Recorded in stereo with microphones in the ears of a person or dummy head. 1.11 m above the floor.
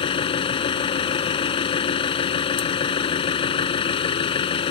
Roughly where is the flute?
I don't hear a flute.